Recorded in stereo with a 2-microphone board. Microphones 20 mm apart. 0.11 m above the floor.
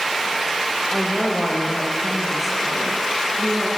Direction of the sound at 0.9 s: 5° left (ahead or behind).